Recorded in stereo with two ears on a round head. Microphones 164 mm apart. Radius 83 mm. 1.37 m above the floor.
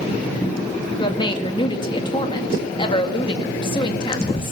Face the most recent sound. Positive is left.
turn(degrees=25)  # may be behind; listen again after turning